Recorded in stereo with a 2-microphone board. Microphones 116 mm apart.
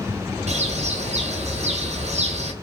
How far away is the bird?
About 0.7 m.